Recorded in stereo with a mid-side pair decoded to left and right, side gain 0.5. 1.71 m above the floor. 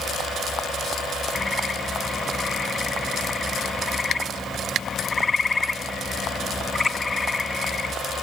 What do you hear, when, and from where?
1.4 s a bird: 25° left